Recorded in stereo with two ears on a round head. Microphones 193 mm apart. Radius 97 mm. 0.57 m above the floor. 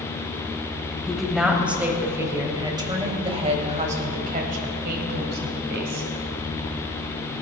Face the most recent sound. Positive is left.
turn(degrees=-60)  # may be behind; listen again after turning